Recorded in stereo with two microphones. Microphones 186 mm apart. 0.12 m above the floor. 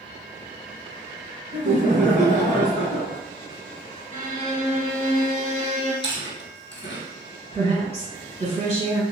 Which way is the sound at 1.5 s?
35° right (ahead or behind).